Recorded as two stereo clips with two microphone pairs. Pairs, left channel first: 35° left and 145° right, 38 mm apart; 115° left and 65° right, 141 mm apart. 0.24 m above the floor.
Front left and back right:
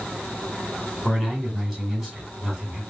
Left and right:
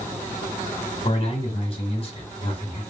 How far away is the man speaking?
About 1.5 m.